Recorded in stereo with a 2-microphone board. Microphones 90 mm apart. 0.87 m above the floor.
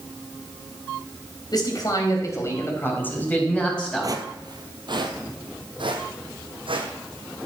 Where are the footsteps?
45° right (ahead or behind), 1.4 m; by 7.5 s 75° right (ahead or behind), 3 m.